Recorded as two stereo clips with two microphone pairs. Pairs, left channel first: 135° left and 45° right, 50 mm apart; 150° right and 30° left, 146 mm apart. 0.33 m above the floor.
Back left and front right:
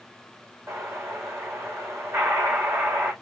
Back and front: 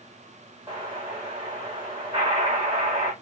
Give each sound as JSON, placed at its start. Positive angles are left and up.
{"t": 0.7, "sound": "an explosion", "azimuth_deg": -25, "distance_m": 5.0}